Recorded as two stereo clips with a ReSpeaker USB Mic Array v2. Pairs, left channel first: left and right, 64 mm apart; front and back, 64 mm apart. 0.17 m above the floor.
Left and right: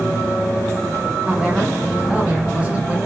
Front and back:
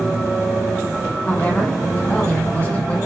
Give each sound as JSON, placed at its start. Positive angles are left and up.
{"t": 1.2, "sound": "a woman speaking", "azimuth_deg": -40, "distance_m": 1.7}